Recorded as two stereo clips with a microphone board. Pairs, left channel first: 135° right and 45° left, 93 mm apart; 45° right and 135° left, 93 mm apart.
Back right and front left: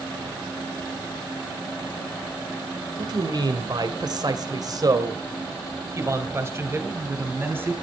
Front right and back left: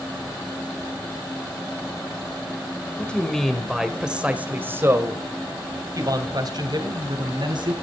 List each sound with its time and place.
3.0 s a man speaking: 30° left, 2 m; by 7.7 s 110° left, 4 m